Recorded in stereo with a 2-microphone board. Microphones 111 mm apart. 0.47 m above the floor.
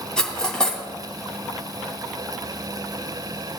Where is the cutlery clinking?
10° left (ahead or behind), 2.0 m.